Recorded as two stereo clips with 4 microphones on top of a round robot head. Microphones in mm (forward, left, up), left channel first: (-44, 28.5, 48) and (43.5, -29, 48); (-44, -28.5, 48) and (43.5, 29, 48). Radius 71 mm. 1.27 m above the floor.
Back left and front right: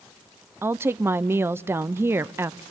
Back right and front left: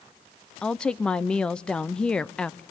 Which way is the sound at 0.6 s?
75° right.